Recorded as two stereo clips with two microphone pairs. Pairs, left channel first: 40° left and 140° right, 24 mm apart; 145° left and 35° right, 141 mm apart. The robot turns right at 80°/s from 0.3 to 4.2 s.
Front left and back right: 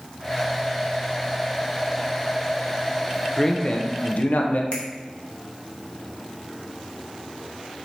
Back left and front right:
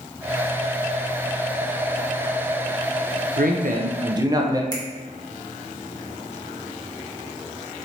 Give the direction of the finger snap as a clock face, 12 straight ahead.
9 o'clock.